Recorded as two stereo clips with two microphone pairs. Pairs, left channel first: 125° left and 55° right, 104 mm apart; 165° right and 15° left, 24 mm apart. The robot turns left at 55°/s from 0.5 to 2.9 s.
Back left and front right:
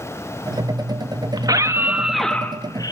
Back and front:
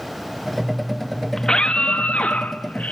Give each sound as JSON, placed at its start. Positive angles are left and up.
{"t": 1.4, "sound": "a scream", "azimuth_deg": -100, "distance_m": 1.5}